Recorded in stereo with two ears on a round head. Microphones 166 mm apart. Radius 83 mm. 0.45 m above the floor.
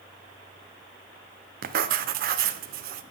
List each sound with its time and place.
1.6 s writing: 55° right (ahead or behind), 0.5 m